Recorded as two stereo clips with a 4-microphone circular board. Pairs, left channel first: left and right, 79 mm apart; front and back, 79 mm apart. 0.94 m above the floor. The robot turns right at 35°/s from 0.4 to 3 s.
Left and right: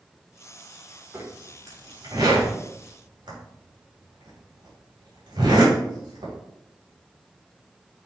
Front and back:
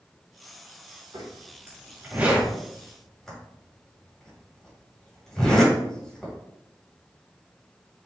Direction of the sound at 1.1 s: 150° right.